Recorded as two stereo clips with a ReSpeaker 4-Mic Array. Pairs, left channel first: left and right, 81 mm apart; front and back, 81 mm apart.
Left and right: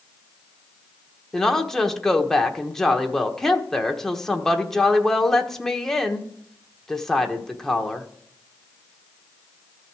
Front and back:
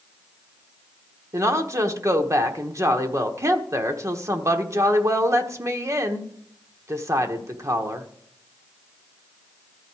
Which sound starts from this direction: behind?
A woman speaking, at 1.3 s.